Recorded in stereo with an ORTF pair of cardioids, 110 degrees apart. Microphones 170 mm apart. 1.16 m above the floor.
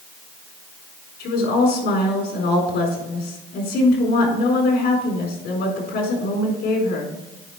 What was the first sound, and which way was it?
A woman speaking, 65° left.